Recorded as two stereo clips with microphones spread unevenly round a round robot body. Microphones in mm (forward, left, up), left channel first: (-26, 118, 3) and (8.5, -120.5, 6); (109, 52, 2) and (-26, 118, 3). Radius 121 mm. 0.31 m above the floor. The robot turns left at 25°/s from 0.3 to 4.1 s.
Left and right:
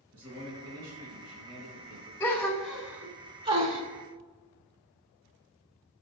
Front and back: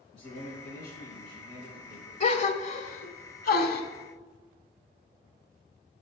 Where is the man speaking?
55° right, 3 m; by 2.1 s 100° right, 3 m.